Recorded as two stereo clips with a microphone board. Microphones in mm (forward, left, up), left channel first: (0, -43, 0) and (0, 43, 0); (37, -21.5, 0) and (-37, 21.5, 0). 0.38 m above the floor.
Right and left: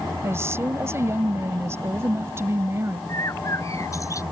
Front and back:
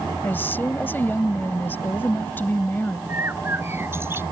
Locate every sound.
0.2 s a woman speaking: 35° left
3.1 s a bird: 145° right